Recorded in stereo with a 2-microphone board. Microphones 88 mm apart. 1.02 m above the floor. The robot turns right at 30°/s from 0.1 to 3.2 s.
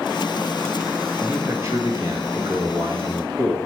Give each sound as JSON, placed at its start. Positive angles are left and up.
{"t": 1.2, "sound": "a man speaking", "azimuth_deg": -155, "distance_m": 1.8}